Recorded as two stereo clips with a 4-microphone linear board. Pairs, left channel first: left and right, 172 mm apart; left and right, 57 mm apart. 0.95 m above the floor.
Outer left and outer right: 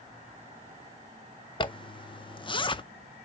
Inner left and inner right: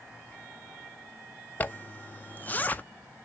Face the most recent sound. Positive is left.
turn(degrees=30)  # may be behind; listen again after turning